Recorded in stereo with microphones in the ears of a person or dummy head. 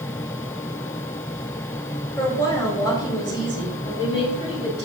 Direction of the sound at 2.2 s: 15° left (ahead or behind).